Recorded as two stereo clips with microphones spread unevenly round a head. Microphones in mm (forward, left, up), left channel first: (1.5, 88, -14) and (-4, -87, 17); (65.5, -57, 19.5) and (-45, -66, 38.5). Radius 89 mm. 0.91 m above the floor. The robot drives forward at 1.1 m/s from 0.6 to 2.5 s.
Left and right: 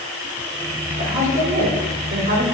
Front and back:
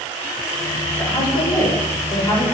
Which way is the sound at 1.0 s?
30° right.